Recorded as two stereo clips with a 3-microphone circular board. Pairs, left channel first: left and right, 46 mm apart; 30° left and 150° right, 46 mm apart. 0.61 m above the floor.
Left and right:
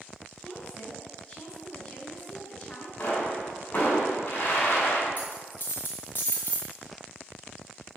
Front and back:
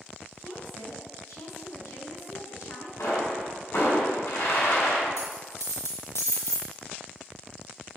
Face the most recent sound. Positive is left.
turn(degrees=40)